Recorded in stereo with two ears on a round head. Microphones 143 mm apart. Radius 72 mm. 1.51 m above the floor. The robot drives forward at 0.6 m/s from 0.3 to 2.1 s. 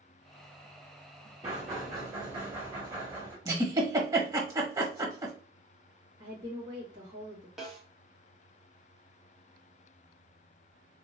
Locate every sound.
1.4 s knocking: 30° right (ahead or behind), 2.5 m; by 3.4 s 25° right (ahead or behind), 3 m
3.5 s a giggle: 25° right (ahead or behind), 1.0 m
6.2 s a woman speaking: 30° right (ahead or behind), 2 m
7.6 s a snare drum: 5° right (ahead or behind), 1.5 m